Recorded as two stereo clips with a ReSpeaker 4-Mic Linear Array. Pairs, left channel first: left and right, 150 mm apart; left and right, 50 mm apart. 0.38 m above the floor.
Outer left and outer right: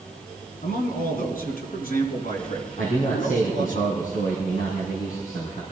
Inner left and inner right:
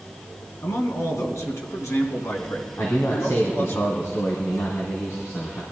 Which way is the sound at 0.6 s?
75° left (ahead or behind).